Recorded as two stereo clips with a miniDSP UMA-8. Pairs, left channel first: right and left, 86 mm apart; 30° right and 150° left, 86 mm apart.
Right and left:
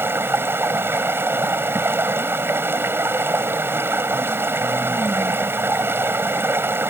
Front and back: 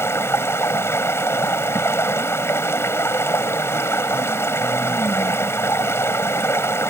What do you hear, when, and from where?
0.0 s running water: 30° left